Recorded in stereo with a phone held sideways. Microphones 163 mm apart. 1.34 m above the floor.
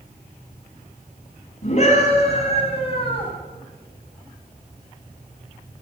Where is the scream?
45° left (ahead or behind), 9.5 m; by 3.3 s 30° left (ahead or behind), 8 m.